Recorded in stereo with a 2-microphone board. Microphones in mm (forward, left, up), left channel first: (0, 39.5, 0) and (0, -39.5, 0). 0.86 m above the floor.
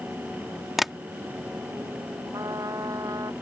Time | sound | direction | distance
0.8 | tapping | centre (ahead or behind) | ?
2.3 | a trumpet | 50° right (ahead or behind) | ?